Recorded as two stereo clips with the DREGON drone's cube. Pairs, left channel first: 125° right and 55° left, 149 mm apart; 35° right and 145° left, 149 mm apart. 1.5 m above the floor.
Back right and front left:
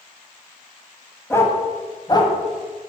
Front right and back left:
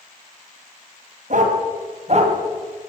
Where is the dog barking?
165° left, 2.5 m; by 2.4 s 175° right, 2.5 m.